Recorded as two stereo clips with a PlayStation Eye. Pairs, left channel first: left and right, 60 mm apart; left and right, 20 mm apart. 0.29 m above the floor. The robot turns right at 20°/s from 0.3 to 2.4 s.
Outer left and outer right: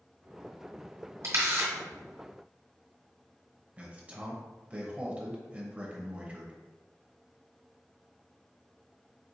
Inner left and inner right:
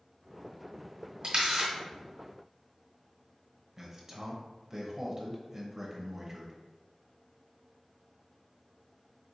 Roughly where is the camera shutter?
Right.